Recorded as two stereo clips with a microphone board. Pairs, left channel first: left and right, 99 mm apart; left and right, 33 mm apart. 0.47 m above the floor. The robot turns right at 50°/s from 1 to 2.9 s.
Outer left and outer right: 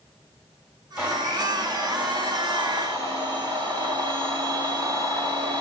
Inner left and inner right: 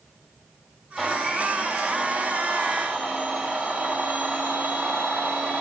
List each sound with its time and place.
1.0 s a blender: 150° right, 2.5 m; by 5.6 s 55° right, 2.5 m